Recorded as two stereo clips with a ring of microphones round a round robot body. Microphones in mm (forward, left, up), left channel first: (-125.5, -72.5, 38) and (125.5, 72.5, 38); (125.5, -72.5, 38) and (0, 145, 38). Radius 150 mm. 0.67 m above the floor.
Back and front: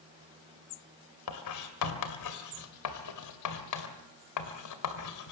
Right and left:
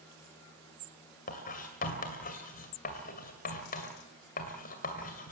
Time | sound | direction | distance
1.3 | writing | 125° right | 2 m